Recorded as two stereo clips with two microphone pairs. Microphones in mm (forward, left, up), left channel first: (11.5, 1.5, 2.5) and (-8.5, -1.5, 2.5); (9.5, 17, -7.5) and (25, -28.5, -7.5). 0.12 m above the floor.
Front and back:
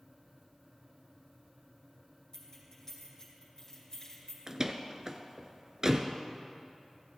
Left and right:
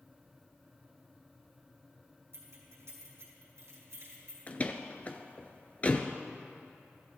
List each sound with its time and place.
2.3 s keys jangling: 55° right, 4.5 m
4.5 s a door slam: 150° left, 1.0 m